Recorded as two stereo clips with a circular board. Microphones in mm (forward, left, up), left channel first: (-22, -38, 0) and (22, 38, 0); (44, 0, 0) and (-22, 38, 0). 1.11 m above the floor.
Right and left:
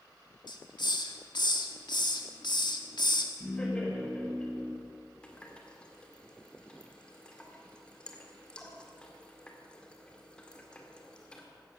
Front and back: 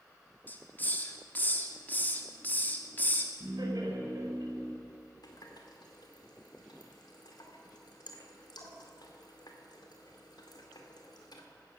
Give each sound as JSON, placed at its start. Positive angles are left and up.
{"t": 0.5, "sound": "a hiss", "azimuth_deg": -95, "distance_m": 1.5}
{"t": 3.4, "sound": "laughter", "azimuth_deg": 165, "distance_m": 4.5}
{"t": 5.2, "sound": "a running tap", "azimuth_deg": -40, "distance_m": 2.0}